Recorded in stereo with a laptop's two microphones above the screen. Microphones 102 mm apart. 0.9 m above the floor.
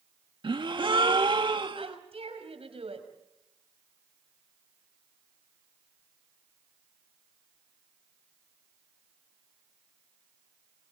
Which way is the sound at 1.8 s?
65° right (ahead or behind).